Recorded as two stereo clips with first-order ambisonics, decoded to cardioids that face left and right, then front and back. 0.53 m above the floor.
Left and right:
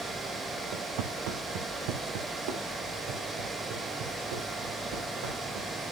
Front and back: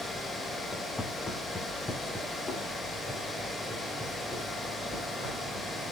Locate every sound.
0.7 s footsteps: 80° right, 2.5 m; by 5.7 s 85° right, 7.5 m